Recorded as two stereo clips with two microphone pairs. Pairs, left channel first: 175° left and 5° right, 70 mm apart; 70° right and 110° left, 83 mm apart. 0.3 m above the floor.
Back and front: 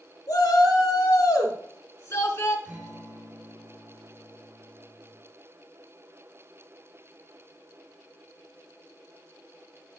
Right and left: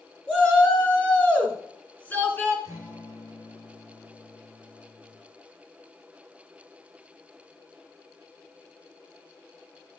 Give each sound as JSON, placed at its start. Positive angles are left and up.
{"t": 0.3, "sound": "a shout", "azimuth_deg": -150, "distance_m": 4.0}
{"t": 2.6, "sound": "a guitar", "azimuth_deg": 60, "distance_m": 2.5}